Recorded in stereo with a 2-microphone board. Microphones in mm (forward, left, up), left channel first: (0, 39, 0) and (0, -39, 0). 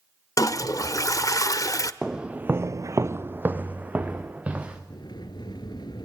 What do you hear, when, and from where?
0.4 s a toilet flushing: 45° left (ahead or behind), 0.7 m
2.0 s footsteps: 10° right (ahead or behind), 1.1 m; by 4.8 s 15° right (ahead or behind), 3 m
4.9 s a sliding door: 70° left (ahead or behind), 1.4 m